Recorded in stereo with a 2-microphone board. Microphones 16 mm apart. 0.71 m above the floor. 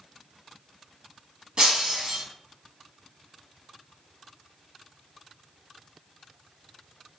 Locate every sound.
1.6 s breaking glass: 40° right (ahead or behind), 1.3 m